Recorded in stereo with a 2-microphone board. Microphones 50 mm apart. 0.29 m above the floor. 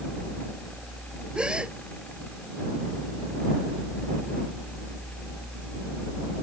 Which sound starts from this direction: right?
A gasp, at 1.4 s.